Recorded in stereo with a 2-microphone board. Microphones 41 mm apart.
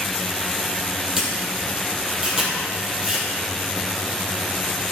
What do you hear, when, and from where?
1.2 s a camera shutter: 15° right (ahead or behind), 3 m